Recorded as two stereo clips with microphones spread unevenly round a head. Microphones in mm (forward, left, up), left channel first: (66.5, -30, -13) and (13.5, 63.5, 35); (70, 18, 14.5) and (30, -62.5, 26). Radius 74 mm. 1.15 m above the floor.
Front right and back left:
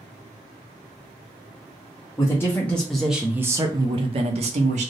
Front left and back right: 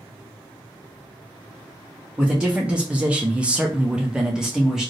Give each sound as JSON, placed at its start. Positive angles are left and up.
{"t": 2.2, "sound": "a man speaking", "azimuth_deg": -35, "distance_m": 0.9}